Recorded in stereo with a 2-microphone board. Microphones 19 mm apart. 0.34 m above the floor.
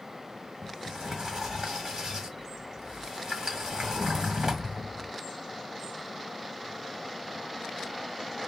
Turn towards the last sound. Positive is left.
turn(degrees=-30)  # may be behind; listen again after turning